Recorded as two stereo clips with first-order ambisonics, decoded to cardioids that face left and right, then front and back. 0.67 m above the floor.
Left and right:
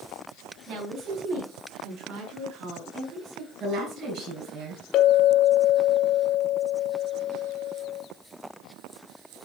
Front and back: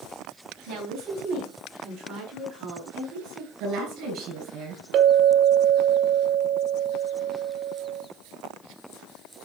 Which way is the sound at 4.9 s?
135° left.